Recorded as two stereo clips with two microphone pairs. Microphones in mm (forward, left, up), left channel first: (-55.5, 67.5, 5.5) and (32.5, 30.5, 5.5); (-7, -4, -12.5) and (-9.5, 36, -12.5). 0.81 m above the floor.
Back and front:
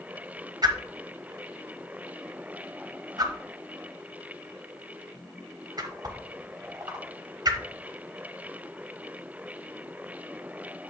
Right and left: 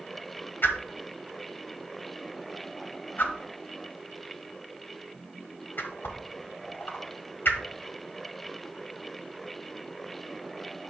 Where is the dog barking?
I don't hear a dog barking.